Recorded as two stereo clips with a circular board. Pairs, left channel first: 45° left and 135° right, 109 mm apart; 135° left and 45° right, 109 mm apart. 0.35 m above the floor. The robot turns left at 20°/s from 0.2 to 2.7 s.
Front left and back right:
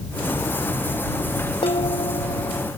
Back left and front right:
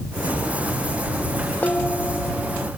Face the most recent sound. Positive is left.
turn(degrees=40)